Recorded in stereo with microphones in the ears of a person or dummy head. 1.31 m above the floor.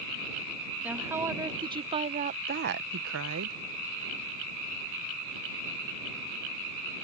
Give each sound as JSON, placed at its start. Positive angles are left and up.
{"t": 0.8, "sound": "a woman speaking", "side_deg": -10}